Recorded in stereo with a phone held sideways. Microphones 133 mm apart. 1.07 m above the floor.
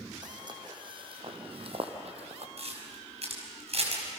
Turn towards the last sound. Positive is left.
turn(degrees=-55)  # may be behind; listen again after turning